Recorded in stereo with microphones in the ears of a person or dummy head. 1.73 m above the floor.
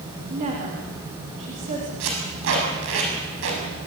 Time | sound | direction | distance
0.3 | a woman speaking | 40° right (ahead or behind) | 4 m
2.0 | tape being pulled | 70° right (ahead or behind) | 6.5 m